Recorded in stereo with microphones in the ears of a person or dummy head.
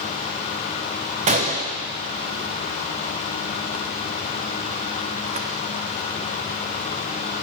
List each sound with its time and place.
1.3 s a gunshot: 35° right (ahead or behind), 0.8 m